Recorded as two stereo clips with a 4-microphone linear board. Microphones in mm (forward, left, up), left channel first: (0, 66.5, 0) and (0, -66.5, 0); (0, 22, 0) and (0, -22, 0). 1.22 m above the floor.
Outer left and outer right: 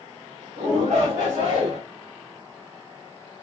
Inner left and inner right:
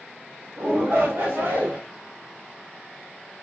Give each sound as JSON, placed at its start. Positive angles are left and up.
{"t": 0.6, "sound": "a shout", "side_deg": -55, "distance_m": 1.2}